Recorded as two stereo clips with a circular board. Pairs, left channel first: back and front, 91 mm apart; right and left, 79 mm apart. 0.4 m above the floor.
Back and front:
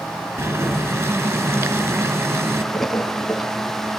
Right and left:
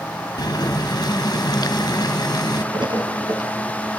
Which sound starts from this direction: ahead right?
Boiling, at 0.4 s.